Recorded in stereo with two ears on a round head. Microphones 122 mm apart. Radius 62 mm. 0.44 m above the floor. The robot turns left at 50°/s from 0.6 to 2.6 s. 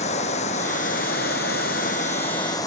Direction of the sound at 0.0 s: 125° left.